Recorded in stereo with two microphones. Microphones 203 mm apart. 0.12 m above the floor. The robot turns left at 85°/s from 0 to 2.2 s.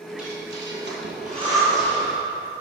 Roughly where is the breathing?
Right.